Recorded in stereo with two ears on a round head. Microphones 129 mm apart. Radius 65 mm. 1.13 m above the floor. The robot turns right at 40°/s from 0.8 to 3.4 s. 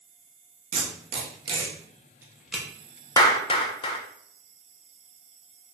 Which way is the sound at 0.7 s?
50° right (ahead or behind).